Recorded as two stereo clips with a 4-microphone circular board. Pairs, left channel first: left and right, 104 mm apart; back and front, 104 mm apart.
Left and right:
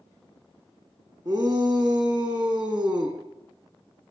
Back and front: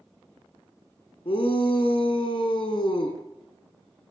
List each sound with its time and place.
1.2 s a shout: 145° right, 5 m